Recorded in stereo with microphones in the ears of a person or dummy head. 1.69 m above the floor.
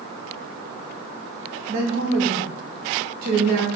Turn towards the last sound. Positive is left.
turn(degrees=-50)  # may be behind; listen again after turning